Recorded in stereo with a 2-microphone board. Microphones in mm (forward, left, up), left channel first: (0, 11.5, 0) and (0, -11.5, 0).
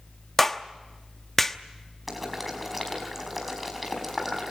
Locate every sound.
0.4 s a clap: 10° left (ahead or behind), 0.9 m
2.1 s boiling: 5° right (ahead or behind), 5 m